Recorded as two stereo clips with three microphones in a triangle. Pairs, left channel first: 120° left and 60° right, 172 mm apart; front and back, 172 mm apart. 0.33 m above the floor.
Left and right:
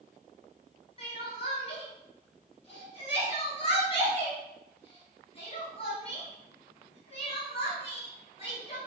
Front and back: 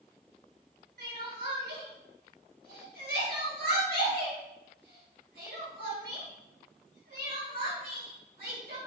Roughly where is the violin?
No violin in this recording.